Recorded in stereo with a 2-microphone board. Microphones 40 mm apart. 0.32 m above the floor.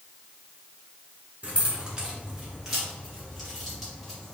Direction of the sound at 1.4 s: 30° right (ahead or behind).